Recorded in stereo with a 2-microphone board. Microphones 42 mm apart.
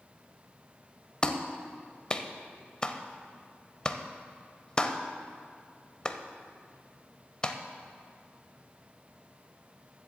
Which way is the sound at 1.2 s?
20° left (ahead or behind).